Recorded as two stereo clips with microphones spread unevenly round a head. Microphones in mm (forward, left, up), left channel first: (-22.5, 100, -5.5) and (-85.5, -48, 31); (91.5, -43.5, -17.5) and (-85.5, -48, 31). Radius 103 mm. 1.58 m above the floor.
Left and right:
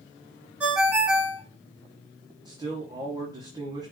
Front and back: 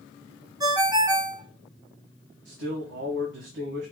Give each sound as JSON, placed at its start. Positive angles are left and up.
{"t": 0.6, "sound": "a ringtone", "azimuth_deg": -170, "distance_m": 1.1}
{"t": 2.5, "sound": "a man speaking", "azimuth_deg": -175, "distance_m": 1.1}